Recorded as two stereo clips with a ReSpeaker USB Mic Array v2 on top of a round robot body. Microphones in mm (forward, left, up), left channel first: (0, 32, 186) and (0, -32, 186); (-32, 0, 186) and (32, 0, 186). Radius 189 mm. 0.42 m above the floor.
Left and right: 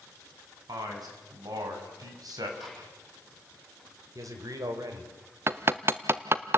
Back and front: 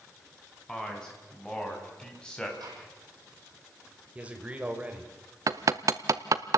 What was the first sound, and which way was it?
A man speaking, 100° right.